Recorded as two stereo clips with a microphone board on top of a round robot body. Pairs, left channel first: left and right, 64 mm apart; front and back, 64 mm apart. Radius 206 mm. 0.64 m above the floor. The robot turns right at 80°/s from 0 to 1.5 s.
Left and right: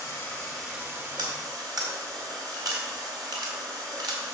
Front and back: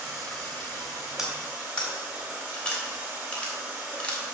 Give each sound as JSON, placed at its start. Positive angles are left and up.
{"t": 0.0, "sound": "running water", "azimuth_deg": 135, "distance_m": 2.5}
{"t": 1.2, "sound": "cutlery clinking", "azimuth_deg": -95, "distance_m": 2.0}